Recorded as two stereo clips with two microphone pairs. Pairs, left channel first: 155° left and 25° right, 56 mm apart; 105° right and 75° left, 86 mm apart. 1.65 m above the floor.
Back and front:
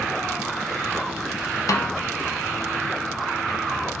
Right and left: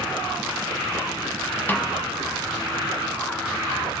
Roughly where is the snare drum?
Behind.